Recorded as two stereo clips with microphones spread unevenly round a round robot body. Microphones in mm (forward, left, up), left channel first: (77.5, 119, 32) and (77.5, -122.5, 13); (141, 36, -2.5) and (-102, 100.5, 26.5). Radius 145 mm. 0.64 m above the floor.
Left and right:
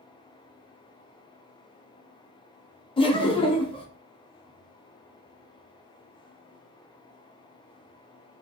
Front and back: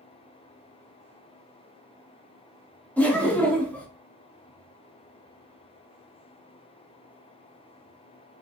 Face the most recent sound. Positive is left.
turn(degrees=45)